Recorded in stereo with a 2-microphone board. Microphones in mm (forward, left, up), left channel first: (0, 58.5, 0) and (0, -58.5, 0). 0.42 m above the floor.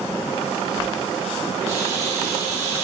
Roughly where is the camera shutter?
Right.